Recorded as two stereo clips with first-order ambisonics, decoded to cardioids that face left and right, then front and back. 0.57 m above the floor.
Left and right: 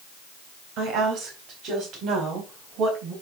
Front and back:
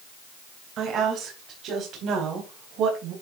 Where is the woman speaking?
130° right, 3.5 m; by 3.1 s 135° right, 4.5 m.